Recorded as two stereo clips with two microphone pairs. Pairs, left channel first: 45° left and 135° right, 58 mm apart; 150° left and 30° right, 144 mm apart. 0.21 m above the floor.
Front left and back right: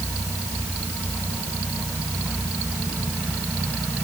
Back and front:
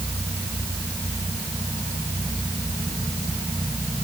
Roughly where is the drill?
No drill in this recording.